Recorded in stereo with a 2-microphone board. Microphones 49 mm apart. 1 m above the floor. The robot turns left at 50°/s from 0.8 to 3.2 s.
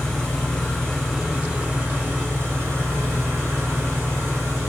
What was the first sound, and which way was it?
An engine running, 20° left.